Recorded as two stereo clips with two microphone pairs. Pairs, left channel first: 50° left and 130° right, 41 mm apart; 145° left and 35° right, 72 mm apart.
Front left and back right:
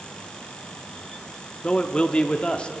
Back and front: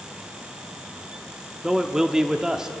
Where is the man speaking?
35° left, 0.7 m.